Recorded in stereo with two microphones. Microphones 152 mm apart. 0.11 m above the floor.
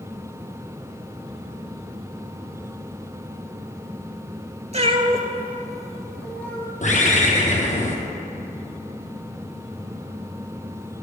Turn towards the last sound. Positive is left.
turn(degrees=55)  # may be behind; listen again after turning